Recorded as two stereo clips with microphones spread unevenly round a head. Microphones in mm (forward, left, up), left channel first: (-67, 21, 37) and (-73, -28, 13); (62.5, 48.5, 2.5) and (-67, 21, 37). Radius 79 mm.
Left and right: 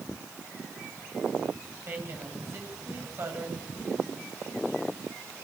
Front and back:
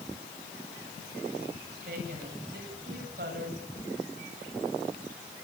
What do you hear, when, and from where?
1.9 s a woman speaking: 135° right, 9 m
3.8 s a whoosh: 65° left, 7.5 m